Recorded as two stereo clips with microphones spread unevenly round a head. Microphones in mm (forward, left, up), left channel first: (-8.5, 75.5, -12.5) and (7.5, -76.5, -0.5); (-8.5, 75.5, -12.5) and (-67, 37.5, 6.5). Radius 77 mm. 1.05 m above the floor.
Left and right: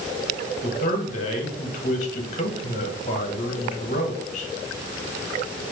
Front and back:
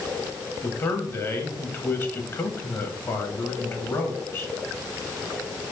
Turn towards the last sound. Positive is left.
turn(degrees=65)